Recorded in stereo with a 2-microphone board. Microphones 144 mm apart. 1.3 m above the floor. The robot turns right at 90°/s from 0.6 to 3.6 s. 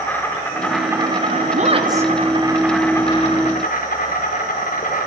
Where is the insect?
165° left, 5 m; by 5.1 s 75° left, 5 m.